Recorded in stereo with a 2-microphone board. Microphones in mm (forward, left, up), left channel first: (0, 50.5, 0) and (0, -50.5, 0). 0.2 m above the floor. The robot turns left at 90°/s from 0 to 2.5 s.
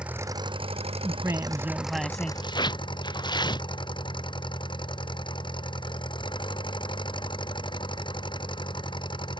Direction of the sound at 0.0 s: 10° right.